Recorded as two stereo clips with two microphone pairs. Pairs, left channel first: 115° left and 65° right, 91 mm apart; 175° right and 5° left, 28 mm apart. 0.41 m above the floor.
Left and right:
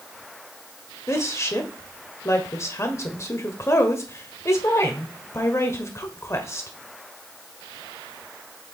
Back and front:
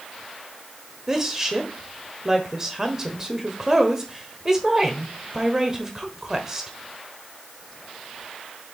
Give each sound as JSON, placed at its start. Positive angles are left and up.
{"t": 1.1, "sound": "a woman speaking", "azimuth_deg": 70, "distance_m": 1.2}